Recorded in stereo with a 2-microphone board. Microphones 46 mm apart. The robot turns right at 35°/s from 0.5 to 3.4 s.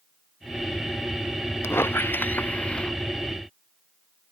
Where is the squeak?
115° left; by 2.9 s 160° left.